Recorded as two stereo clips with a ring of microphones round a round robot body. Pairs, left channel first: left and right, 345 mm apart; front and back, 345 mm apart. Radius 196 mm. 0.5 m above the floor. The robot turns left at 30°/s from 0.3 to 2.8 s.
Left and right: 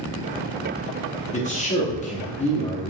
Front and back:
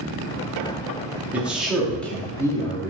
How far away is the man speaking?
About 1.0 m.